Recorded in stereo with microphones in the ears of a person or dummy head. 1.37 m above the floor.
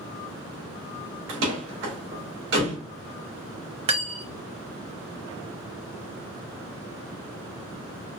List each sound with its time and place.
1.3 s a door slam: 70° right (ahead or behind), 2 m
3.9 s cutlery clinking: 35° right (ahead or behind), 1.1 m